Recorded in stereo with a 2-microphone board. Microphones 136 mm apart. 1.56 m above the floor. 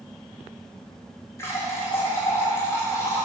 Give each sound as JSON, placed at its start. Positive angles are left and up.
{"t": 1.4, "sound": "a running tap", "side_deg": 20, "distance_m": 1.5}